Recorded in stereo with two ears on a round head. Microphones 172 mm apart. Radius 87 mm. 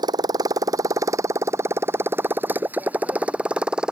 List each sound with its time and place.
0.0 s a motorcycle: 20° right (ahead or behind); by 3.9 s 5° right (ahead or behind)